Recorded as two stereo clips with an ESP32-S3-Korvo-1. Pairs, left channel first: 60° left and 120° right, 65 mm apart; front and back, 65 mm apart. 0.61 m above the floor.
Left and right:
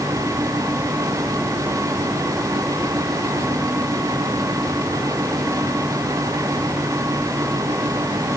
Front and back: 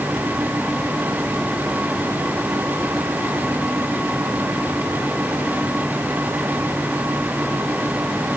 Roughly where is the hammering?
No hammering in this recording.